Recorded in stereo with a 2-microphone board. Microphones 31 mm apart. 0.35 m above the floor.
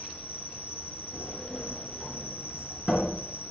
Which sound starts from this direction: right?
An insect, at 0.0 s.